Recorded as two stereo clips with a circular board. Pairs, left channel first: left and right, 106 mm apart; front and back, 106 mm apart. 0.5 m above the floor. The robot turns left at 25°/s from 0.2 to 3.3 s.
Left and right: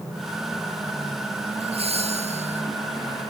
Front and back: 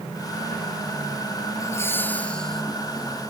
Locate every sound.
1.6 s laughter: 60° right; by 2.6 s 85° right